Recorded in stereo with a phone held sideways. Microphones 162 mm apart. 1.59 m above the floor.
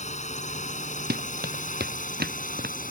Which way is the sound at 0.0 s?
45° left (ahead or behind).